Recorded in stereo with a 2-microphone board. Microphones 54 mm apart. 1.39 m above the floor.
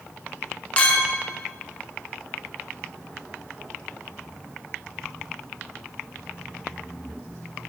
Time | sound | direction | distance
0.8 | a clink | 25° left (ahead or behind) | 0.7 m